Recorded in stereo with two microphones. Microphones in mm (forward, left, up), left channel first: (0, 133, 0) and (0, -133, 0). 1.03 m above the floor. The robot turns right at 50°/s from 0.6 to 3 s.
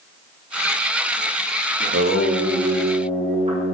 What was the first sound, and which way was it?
Singing, 85° right.